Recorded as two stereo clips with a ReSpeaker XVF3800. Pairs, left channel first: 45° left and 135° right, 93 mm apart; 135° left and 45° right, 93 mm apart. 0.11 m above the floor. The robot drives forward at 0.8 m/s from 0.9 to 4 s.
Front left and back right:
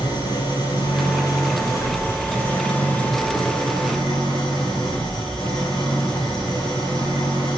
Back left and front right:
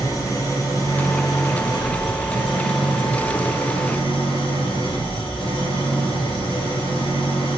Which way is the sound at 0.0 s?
85° left.